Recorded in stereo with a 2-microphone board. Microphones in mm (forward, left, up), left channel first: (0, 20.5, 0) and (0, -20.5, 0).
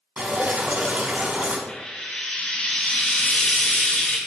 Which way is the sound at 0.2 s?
40° right (ahead or behind).